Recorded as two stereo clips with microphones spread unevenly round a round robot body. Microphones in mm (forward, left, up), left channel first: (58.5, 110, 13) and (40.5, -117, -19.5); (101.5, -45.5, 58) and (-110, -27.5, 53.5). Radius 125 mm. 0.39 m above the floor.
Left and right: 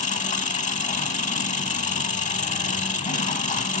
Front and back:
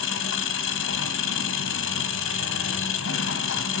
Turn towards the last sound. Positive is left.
turn(degrees=25)